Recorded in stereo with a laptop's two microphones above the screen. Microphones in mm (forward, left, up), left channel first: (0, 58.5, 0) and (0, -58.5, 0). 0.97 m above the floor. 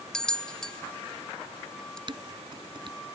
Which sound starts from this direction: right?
Dishes clattering, at 2.1 s.